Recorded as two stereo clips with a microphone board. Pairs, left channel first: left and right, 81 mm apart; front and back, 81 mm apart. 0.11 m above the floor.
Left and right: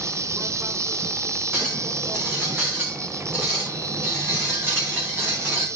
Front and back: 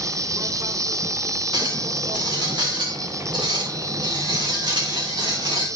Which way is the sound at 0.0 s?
140° right.